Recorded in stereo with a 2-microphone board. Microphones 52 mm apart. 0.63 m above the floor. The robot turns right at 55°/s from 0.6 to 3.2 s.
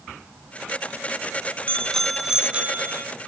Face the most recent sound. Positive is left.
turn(degrees=-120)